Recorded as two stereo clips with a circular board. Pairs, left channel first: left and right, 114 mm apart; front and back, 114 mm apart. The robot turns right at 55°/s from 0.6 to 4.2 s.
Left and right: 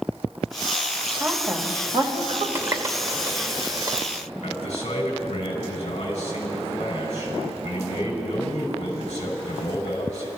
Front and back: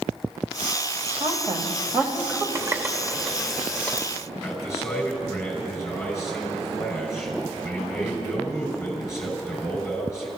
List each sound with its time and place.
1.2 s a woman speaking: 160° right, 2 m; by 2.5 s 90° right, 2 m
2.5 s a running tap: 140° right, 0.7 m; by 4.1 s 60° right, 0.7 m
4.4 s a man speaking: 65° left, 5.5 m